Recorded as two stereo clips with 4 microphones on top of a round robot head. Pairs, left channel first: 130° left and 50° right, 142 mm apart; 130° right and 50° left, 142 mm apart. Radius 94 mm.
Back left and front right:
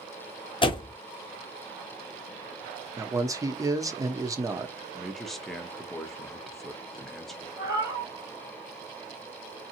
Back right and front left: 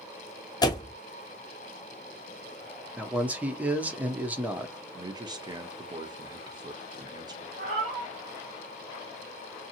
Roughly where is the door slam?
Behind.